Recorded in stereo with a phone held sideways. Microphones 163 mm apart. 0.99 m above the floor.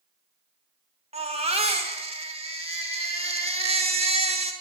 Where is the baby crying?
35° right (ahead or behind), 1.4 m.